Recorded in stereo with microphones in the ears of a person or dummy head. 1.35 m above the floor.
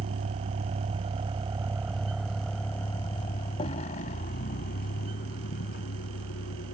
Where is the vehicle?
50° right (ahead or behind); by 6.8 s 60° left (ahead or behind).